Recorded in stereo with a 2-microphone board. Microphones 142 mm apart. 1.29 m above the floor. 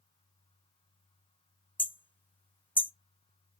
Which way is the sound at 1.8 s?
15° left (ahead or behind).